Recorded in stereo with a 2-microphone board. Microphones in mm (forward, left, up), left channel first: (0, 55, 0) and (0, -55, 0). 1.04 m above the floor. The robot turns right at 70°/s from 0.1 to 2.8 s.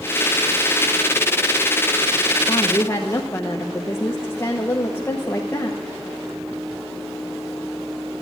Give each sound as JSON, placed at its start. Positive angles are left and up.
{"t": 2.5, "sound": "a woman speaking", "side_deg": 35, "distance_m": 1.0}